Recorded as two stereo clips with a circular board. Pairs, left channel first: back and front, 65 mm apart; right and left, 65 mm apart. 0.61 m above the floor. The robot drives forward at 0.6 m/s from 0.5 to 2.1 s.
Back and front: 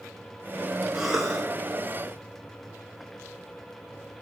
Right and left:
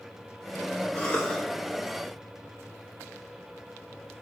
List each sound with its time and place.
0.9 s a cough: 70° right, 1.1 m; by 1.4 s 105° right, 1.1 m